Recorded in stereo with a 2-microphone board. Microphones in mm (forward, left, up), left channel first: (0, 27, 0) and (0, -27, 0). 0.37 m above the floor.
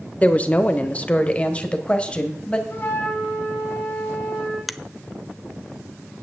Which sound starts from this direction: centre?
A finger snap, at 4.7 s.